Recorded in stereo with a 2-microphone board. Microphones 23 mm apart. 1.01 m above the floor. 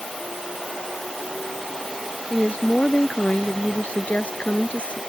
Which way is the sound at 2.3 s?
70° left (ahead or behind).